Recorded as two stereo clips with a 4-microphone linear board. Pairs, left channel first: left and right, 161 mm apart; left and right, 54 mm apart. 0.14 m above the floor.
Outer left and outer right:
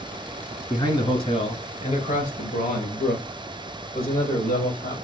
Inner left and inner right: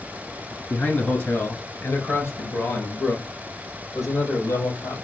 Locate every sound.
0.7 s a man speaking: 25° left (ahead or behind), 1.4 m; by 5.0 s 70° left (ahead or behind), 3 m